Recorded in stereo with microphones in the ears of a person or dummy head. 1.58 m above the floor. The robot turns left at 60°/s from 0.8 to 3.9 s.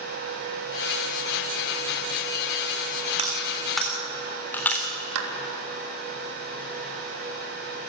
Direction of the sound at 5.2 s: 75° right (ahead or behind).